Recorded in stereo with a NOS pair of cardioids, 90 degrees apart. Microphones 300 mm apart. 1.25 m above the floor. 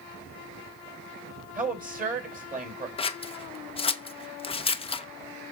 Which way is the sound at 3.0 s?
20° left.